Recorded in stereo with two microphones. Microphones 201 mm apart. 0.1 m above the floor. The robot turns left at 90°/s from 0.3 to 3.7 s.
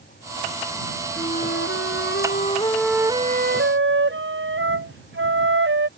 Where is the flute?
155° left; by 5.9 s 75° right.